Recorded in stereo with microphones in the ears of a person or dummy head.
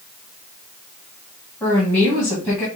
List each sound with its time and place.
1.6 s a woman speaking: 15° left (ahead or behind), 1.7 m